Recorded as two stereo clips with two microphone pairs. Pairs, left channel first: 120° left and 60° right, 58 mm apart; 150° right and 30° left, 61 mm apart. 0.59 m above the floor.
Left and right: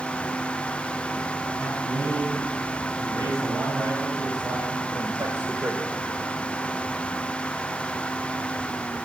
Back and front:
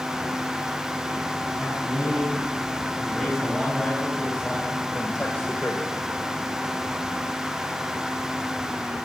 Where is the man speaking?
60° right, 7.5 m; by 6.0 s 110° right, 2.0 m.